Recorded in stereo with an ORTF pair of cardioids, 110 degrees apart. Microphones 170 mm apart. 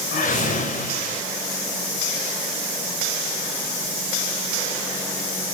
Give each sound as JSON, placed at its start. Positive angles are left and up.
{"t": 0.1, "sound": "a whoosh", "azimuth_deg": 60, "distance_m": 5.0}